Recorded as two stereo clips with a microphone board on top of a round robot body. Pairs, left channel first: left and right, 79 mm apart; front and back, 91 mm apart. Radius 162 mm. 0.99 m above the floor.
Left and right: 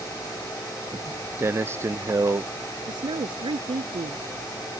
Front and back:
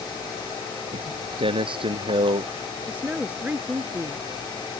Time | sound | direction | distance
0.9 | footsteps | 155° right | ?
2.9 | a woman speaking | 105° right | ?